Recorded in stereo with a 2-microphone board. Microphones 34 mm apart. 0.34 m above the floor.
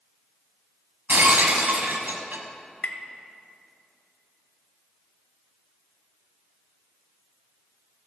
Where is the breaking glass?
70° right (ahead or behind), 1.3 m.